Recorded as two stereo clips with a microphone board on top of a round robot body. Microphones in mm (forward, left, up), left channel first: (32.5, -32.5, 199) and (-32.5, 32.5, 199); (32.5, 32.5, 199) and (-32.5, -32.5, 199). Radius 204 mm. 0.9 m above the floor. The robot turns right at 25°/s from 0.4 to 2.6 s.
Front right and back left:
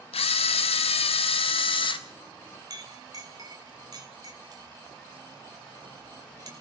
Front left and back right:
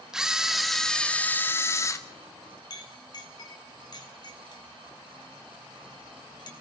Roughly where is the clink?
Left.